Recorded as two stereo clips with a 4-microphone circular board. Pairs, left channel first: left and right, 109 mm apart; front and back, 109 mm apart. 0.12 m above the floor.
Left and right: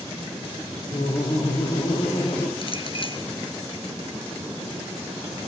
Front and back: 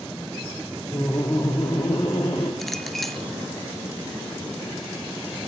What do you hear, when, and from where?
0.9 s laughter: 70° left, 4.5 m; by 2.5 s 60° left, 6 m
2.6 s a clink: 90° left, 1.6 m